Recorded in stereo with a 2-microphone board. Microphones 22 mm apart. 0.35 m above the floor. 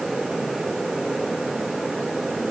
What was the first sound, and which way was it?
Only background noise.